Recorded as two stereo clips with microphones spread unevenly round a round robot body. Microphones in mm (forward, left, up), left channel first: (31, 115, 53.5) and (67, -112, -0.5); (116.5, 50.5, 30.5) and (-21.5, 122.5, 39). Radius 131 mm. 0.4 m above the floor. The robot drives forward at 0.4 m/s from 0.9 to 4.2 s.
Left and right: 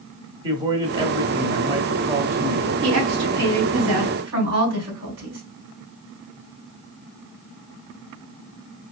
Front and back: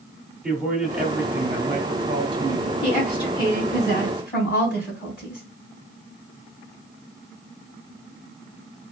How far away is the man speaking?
About 1.0 m.